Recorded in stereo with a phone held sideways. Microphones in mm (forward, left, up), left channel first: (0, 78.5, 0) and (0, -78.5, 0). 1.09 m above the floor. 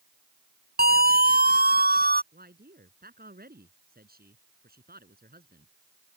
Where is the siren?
85° right.